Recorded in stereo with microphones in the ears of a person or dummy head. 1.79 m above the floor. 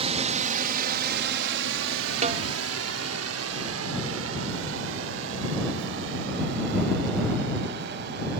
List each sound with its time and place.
0.0 s a drone: 35° right (ahead or behind); by 8.4 s 60° right (ahead or behind)
2.2 s a snare drum: 40° right (ahead or behind)